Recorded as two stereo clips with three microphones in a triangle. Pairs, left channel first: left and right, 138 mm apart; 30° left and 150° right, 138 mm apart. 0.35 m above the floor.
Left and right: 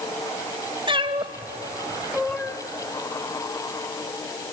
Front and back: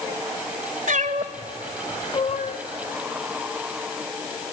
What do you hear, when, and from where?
0.9 s a cat meowing: 140° right, 1.3 m; by 2.6 s 15° left, 1.1 m